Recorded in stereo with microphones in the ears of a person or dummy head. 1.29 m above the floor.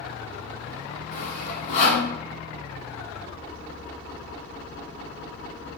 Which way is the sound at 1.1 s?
50° left (ahead or behind).